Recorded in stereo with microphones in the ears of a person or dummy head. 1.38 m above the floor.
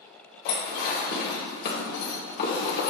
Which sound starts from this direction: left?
Dishes clattering, at 0.5 s.